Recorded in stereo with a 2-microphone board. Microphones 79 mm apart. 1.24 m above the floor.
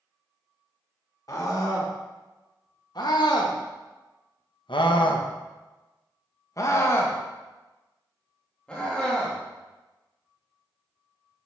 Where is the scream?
45° left (ahead or behind), 2.5 m; by 11.5 s centre (ahead or behind), 3.5 m.